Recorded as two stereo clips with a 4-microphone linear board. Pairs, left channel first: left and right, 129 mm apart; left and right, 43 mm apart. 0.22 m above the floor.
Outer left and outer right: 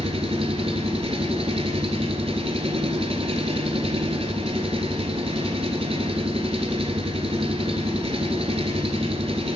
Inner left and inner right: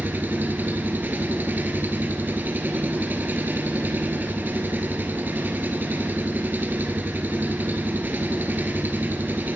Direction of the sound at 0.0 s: 50° right (ahead or behind).